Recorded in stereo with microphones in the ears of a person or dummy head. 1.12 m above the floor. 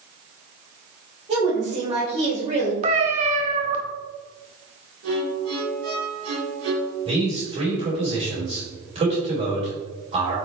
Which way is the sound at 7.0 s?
25° right (ahead or behind).